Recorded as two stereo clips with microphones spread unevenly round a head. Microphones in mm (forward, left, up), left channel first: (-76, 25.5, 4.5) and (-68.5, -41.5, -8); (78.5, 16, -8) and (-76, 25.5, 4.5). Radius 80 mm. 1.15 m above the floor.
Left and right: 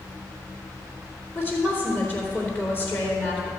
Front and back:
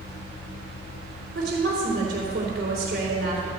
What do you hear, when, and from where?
1.4 s a woman speaking: 155° left, 3.5 m